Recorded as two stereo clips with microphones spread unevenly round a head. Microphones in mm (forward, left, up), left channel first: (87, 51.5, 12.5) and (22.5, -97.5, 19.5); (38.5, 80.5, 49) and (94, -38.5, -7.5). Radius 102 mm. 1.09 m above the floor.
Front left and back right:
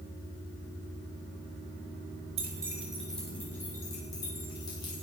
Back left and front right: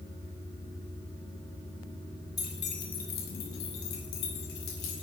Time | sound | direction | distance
2.4 | keys jangling | 175° right | 1.1 m